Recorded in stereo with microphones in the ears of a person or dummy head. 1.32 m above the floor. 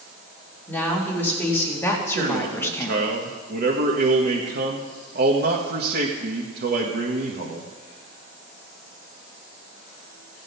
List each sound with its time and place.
0.7 s a woman speaking: 5° left (ahead or behind), 3 m; by 3.0 s 10° left (ahead or behind), 1.0 m
2.1 s a man speaking: 60° right (ahead or behind), 1.5 m